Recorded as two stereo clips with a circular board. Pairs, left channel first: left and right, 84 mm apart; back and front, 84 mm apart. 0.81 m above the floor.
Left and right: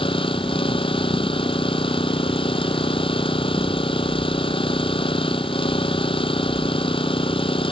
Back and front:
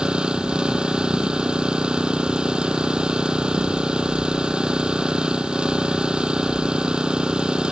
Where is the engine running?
80° left.